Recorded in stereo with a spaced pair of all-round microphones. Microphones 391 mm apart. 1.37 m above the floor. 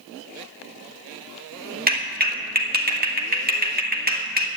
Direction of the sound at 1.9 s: 25° right (ahead or behind).